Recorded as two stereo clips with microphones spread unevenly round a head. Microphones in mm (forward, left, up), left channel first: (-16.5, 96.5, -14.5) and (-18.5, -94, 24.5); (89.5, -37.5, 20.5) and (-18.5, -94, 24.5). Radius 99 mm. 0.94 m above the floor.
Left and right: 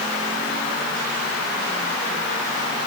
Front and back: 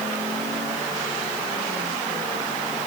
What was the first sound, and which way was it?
Only background noise.